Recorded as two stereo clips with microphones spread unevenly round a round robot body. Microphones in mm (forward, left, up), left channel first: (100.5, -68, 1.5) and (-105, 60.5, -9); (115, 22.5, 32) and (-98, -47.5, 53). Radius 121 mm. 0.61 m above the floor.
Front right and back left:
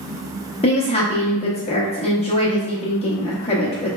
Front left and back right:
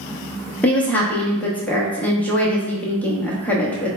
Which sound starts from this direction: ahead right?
A woman speaking, at 0.6 s.